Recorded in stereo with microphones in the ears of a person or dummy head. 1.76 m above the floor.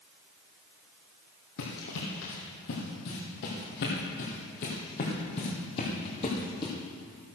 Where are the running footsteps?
55° left (ahead or behind), 3 m; by 6.7 s 25° left (ahead or behind), 3 m.